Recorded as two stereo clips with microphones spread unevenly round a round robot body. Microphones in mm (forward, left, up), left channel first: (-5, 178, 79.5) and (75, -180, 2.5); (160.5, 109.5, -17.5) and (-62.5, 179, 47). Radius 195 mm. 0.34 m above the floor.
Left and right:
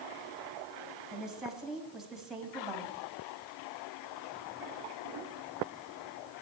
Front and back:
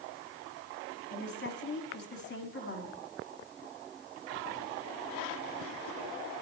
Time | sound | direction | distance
1.1 | a woman speaking | 5° left | 2.5 m